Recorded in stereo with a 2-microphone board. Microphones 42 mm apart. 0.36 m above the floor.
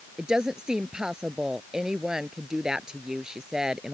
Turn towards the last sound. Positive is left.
turn(degrees=-20)  # may be behind; listen again after turning